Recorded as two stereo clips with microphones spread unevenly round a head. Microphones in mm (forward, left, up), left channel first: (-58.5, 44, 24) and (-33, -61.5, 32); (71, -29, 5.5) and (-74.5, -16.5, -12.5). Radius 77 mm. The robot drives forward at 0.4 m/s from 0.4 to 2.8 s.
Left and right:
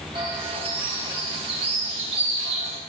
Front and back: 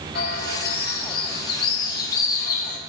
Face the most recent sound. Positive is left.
turn(degrees=-35)